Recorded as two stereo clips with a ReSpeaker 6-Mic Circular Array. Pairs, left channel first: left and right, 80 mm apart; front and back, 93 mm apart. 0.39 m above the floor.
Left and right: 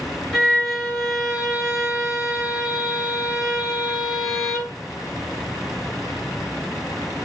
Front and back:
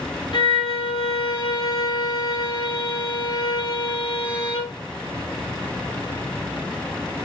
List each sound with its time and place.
0.3 s a violin: 10° left, 0.7 m